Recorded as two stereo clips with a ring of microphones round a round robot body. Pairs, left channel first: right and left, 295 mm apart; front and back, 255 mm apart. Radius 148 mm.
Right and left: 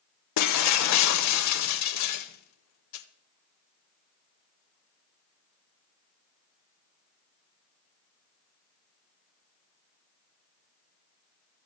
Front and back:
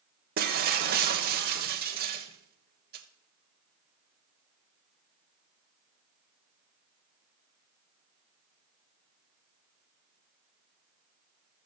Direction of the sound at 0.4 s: 120° right.